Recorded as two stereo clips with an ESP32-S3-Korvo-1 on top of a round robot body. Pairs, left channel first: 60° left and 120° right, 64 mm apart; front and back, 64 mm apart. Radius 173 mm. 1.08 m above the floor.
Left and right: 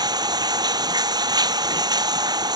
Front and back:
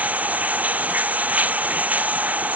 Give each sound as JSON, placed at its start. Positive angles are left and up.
{"t": 0.0, "sound": "running water", "azimuth_deg": -115}